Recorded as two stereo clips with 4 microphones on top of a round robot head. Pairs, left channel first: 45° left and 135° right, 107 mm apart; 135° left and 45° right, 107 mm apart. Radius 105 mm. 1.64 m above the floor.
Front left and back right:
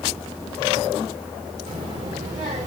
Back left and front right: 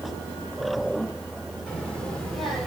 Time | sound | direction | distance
1.7 | a child speaking | 145° right | 2.0 m